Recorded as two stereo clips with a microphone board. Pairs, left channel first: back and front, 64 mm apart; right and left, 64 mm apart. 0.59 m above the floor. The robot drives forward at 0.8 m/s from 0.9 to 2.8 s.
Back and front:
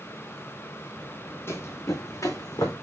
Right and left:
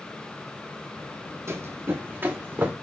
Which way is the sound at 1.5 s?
130° left.